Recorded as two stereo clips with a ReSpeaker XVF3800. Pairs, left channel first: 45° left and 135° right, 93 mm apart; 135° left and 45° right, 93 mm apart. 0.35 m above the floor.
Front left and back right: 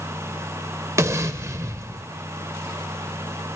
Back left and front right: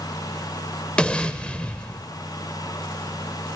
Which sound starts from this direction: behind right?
An explosion, at 1.0 s.